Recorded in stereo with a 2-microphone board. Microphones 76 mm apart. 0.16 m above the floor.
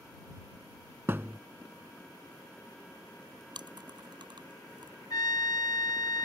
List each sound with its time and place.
1.1 s a thud: 30° right (ahead or behind)
3.5 s chewing: 75° right (ahead or behind)
5.1 s a trumpet: 55° left (ahead or behind)